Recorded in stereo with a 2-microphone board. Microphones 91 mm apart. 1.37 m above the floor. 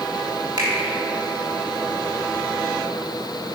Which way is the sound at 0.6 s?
60° right (ahead or behind).